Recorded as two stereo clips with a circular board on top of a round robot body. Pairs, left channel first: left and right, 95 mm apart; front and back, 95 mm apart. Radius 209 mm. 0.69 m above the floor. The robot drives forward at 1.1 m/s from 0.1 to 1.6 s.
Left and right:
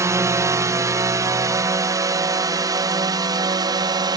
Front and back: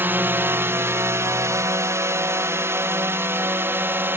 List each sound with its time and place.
0.0 s a drone: 125° right; by 4.2 s 120° right